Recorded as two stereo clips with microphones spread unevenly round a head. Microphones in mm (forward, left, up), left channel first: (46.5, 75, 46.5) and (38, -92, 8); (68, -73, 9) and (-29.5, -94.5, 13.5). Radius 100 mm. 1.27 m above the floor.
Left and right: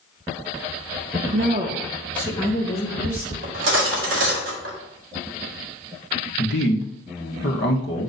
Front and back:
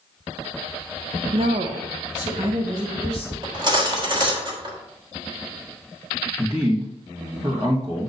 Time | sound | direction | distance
1.3 | a woman speaking | 135° right | 0.8 m
3.4 | cutlery clinking | 125° right | 1.6 m
6.4 | a man speaking | 120° left | 1.4 m